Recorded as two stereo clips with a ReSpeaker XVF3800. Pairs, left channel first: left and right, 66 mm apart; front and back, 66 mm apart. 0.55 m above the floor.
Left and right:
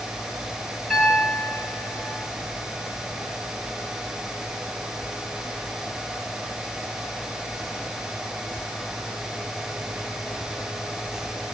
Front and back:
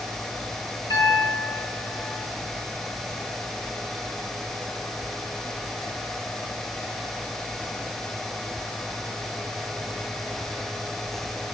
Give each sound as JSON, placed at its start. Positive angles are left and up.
{"t": 0.9, "sound": "a piano", "azimuth_deg": 5, "distance_m": 9.0}